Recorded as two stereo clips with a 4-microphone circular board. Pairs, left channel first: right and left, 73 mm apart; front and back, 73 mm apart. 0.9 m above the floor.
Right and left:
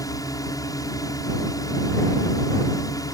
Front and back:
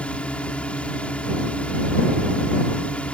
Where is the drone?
70° right.